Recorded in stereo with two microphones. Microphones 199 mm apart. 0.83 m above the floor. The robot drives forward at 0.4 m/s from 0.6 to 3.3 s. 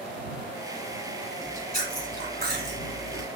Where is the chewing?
40° right (ahead or behind), 1.6 m; by 3.3 s 60° right (ahead or behind), 1.3 m.